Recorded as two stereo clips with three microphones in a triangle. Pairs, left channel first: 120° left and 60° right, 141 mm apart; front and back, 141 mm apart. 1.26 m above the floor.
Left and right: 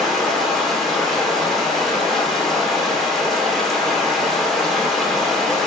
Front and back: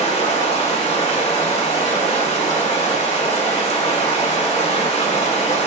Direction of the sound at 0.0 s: 30° left.